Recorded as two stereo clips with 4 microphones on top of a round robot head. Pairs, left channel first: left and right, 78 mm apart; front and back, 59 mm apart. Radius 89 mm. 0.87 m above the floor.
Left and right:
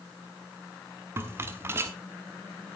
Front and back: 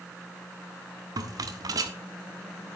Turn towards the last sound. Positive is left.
turn(degrees=-155)